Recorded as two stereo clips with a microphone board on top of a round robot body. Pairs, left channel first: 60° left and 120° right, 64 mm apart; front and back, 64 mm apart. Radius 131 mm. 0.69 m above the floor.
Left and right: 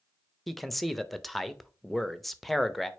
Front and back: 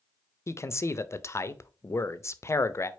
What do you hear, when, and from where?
0.5 s a man speaking: 30° right, 0.6 m